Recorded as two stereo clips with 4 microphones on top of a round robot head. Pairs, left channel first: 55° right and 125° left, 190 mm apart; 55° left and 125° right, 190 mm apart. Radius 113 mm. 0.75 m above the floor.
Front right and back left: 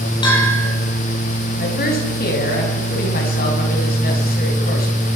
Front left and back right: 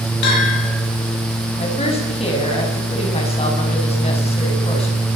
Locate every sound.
0.2 s a bell: 15° left, 8 m
1.6 s a woman speaking: 10° right, 6.5 m